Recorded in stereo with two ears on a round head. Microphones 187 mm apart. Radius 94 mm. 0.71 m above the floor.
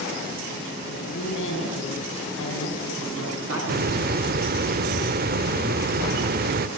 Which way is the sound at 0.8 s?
65° left (ahead or behind).